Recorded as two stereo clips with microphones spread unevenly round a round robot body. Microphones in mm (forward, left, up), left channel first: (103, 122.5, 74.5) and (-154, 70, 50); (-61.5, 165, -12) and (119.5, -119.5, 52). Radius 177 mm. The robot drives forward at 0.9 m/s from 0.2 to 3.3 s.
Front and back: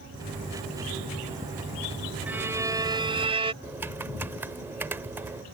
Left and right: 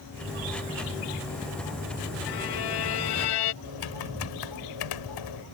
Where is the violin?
105° left; by 3.5 s 120° left.